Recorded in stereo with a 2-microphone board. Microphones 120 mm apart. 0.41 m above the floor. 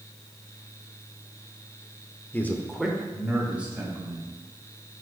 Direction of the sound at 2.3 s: 15° left (ahead or behind).